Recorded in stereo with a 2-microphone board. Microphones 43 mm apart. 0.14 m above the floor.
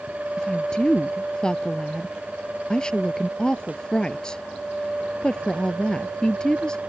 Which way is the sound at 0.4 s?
20° left (ahead or behind).